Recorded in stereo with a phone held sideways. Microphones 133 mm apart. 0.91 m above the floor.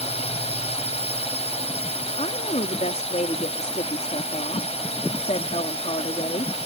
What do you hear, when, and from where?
0.0 s a drone: 55° left (ahead or behind)
2.2 s a woman speaking: 65° left (ahead or behind)